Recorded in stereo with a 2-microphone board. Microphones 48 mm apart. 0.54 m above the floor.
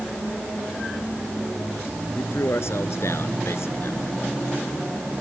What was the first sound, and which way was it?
A man speaking, 70° left (ahead or behind).